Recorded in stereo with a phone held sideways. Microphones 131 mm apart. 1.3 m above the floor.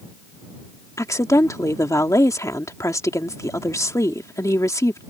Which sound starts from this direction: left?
A woman speaking, at 1.0 s.